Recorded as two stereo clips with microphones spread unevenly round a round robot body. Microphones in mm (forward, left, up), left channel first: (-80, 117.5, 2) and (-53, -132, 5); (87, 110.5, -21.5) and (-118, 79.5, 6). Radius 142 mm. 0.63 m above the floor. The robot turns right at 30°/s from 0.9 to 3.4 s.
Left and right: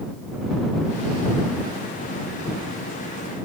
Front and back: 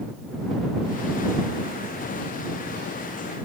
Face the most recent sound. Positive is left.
No sound to turn to.